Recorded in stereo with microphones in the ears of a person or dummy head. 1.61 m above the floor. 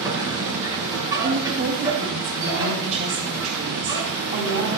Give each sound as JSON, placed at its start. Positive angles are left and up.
{"t": 0.0, "sound": "a machine running", "side_deg": -20, "distance_m": 8.5}
{"t": 1.2, "sound": "a woman speaking", "side_deg": -35, "distance_m": 7.5}